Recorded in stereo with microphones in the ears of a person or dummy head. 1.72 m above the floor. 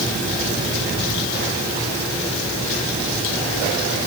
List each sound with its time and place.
Only background noise.